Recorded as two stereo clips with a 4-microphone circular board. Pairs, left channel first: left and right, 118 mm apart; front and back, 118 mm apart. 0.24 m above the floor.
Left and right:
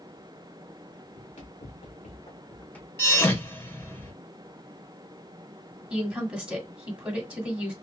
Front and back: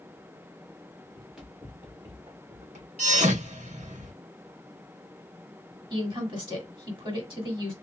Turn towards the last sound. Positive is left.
turn(degrees=-165)